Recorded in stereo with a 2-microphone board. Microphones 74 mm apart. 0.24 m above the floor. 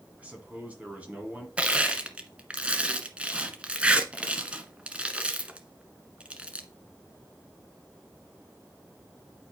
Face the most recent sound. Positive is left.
turn(degrees=-15)  # may be behind; listen again after turning